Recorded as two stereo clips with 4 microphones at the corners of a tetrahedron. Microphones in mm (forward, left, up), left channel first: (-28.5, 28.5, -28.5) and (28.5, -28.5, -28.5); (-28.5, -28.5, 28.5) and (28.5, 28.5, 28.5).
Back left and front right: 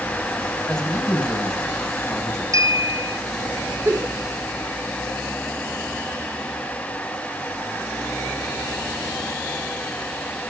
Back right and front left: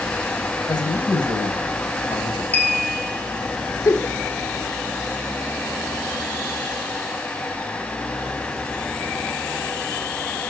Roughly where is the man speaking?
Behind right.